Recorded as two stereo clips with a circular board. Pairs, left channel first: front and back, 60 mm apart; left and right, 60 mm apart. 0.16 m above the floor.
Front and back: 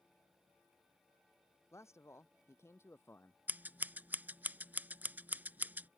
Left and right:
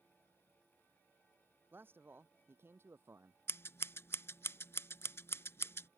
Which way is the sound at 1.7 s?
35° right.